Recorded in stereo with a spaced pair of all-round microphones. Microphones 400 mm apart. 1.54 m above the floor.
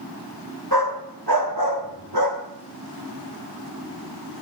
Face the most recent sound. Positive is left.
turn(degrees=-70)  # may be behind; listen again after turning